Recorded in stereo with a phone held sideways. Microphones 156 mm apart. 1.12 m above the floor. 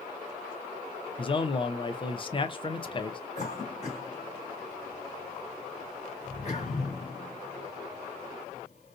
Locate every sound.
1.2 s a man speaking: 35° left (ahead or behind), 0.6 m
3.4 s a cough: 45° left (ahead or behind), 2.5 m